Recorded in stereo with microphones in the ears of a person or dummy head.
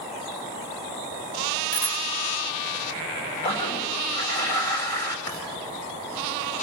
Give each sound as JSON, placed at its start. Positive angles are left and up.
{"t": 1.7, "sound": "a bicycle bell", "side_deg": 85, "distance_m": 3.5}
{"t": 3.4, "sound": "a toilet flushing", "side_deg": 30, "distance_m": 2.5}
{"t": 5.3, "sound": "writing", "side_deg": 30, "distance_m": 6.5}